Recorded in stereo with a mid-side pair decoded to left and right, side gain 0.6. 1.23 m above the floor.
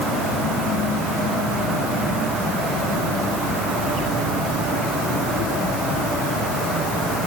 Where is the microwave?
No microwave in this recording.